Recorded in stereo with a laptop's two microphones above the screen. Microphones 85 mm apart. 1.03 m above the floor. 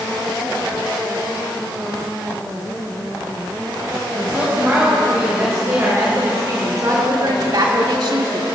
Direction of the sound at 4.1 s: 30° right (ahead or behind).